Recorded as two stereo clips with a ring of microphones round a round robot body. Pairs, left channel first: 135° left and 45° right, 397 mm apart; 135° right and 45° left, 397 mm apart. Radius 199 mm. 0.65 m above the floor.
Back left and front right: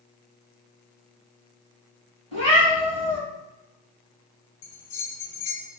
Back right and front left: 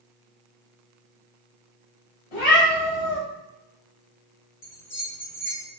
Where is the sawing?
No sawing in this recording.